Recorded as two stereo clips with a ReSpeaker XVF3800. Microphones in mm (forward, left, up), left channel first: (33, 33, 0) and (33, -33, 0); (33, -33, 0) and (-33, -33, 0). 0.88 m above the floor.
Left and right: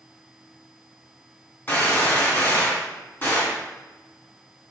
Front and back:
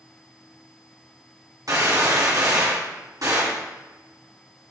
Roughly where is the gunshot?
Behind left.